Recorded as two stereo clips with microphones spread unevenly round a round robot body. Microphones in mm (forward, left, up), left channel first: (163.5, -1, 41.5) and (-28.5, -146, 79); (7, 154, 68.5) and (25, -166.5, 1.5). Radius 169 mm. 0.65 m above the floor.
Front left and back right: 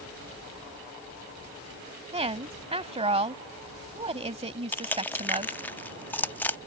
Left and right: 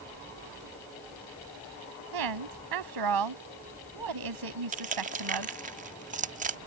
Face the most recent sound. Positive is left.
turn(degrees=-35)